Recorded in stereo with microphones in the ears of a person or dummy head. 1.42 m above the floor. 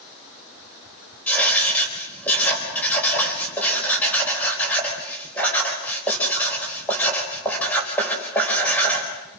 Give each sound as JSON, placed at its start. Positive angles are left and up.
{"t": 1.3, "sound": "writing", "side_deg": 5, "distance_m": 4.5}